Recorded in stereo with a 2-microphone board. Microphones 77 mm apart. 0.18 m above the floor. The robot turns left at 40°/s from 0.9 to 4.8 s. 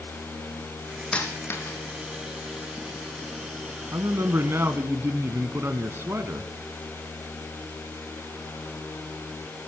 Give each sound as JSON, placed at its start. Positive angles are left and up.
{"t": 1.1, "sound": "a dropped coin", "side_deg": 10, "distance_m": 2.5}
{"t": 3.9, "sound": "a man speaking", "azimuth_deg": -90, "distance_m": 1.3}